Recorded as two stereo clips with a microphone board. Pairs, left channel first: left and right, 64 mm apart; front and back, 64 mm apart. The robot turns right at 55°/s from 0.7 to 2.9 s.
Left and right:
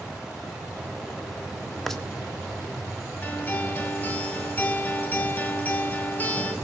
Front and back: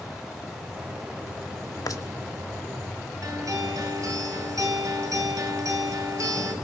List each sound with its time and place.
1.9 s a rattle: 5° left, 1.6 m; by 2.0 s 10° left, 1.6 m
3.2 s a guitar: 155° left, 5 m